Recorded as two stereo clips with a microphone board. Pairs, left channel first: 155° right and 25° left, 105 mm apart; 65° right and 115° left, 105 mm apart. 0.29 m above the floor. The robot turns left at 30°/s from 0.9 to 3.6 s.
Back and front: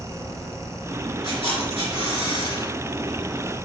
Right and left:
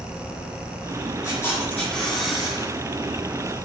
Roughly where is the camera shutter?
Behind right.